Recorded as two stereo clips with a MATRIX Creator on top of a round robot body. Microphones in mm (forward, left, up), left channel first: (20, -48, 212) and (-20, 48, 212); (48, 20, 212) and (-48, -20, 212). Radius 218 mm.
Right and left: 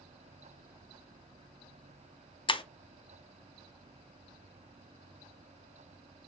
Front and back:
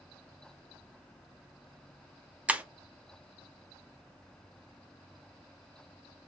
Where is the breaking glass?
85° right, 0.5 m.